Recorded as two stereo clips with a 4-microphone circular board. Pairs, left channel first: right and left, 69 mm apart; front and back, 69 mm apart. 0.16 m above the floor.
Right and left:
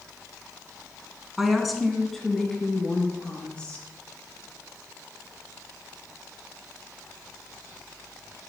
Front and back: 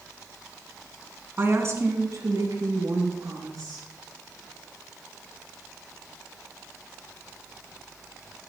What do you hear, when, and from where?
1.4 s a woman speaking: 170° left, 1.7 m; by 3.9 s 165° right, 4 m